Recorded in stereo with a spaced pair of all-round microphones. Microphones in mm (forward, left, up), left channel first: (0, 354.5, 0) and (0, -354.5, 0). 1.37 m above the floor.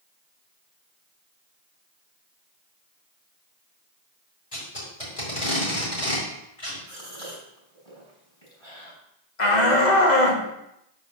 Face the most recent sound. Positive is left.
turn(degrees=80)